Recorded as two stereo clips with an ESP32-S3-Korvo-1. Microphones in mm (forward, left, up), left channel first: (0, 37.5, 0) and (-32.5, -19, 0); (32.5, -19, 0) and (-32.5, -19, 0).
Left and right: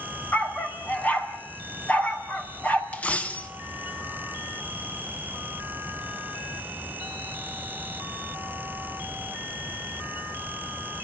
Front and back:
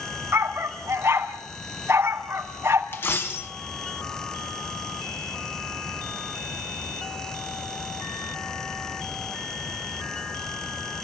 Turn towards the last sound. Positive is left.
turn(degrees=10)